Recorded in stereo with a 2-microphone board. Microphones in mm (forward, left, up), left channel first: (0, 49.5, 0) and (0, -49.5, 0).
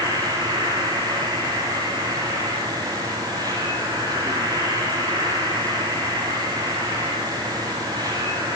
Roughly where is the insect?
Right.